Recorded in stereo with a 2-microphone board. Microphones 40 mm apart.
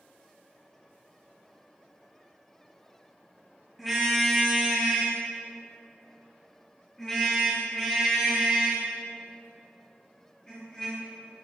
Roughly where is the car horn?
Centre.